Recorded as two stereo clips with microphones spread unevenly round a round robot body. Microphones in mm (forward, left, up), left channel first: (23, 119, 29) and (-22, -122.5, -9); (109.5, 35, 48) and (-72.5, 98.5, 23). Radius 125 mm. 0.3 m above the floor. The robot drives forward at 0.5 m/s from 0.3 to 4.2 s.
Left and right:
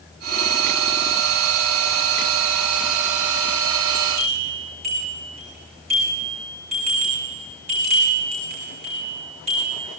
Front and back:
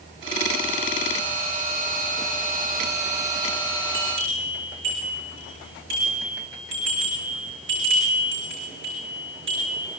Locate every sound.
3.9 s a bell: 165° right, 8 m